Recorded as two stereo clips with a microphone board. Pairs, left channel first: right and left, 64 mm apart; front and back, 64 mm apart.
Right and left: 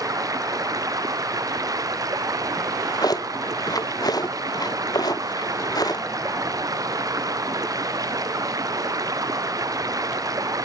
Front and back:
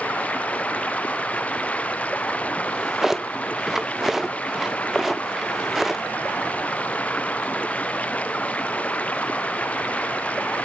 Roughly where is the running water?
Ahead left.